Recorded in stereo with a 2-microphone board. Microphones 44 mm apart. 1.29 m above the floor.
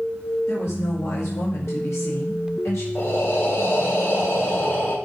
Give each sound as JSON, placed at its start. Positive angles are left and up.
{"t": 0.5, "sound": "a woman speaking", "side_deg": 85, "distance_m": 2.0}
{"t": 3.0, "sound": "breathing", "side_deg": 60, "distance_m": 1.6}